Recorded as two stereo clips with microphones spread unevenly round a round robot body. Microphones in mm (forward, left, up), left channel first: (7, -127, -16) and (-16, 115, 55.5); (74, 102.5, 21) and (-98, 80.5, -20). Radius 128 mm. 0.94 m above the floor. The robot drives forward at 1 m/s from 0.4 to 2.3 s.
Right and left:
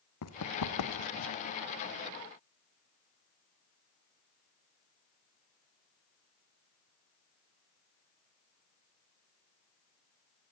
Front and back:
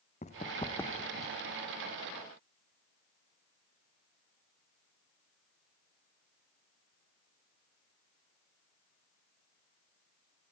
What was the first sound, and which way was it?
Running footsteps, 50° right.